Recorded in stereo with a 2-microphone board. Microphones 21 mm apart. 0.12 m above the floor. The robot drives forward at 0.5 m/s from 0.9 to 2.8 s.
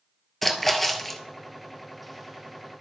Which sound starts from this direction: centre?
A splash, at 0.4 s.